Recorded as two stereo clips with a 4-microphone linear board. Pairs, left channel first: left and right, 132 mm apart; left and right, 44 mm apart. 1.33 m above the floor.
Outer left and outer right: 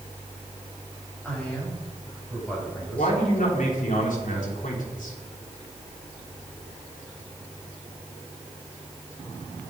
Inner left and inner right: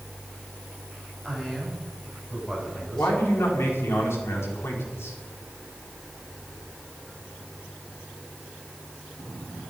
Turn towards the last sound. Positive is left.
turn(degrees=85)